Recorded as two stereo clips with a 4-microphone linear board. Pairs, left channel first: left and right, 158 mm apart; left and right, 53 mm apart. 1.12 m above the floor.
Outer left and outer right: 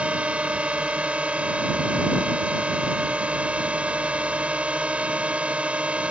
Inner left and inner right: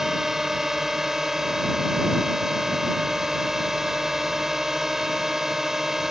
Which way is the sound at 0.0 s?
5° right (ahead or behind).